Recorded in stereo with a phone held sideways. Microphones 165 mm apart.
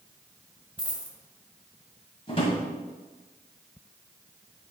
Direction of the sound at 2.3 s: 35° left (ahead or behind).